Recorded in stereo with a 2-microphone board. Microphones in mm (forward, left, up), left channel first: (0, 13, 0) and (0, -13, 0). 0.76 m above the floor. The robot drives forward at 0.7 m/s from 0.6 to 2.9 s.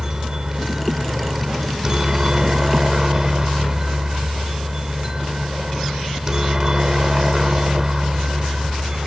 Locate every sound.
0.0 s a helicopter: 20° right (ahead or behind)